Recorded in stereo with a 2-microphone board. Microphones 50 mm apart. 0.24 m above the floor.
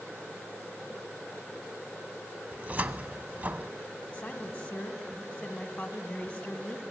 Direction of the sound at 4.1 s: 20° left (ahead or behind).